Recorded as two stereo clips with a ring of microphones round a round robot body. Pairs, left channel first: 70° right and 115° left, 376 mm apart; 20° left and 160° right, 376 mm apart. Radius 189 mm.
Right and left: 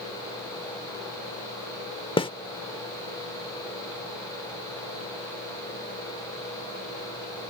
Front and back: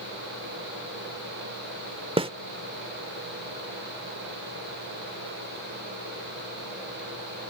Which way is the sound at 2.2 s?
115° right.